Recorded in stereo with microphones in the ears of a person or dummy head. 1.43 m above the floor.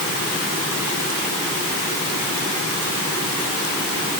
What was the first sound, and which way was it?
Only background noise.